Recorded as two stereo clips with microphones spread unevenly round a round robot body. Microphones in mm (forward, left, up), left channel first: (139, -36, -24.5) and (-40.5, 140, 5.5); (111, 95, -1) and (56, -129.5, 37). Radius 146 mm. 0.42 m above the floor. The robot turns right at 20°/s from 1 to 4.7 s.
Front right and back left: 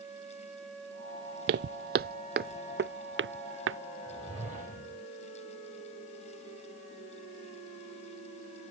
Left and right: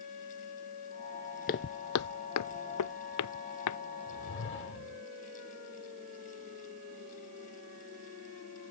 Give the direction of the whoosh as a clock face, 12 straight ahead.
10 o'clock.